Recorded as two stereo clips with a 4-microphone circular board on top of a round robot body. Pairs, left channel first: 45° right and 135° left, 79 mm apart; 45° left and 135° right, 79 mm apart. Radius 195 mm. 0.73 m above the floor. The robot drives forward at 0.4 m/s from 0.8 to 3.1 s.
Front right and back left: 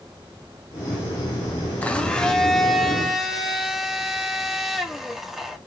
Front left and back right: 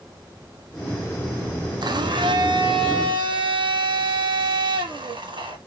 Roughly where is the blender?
Behind right.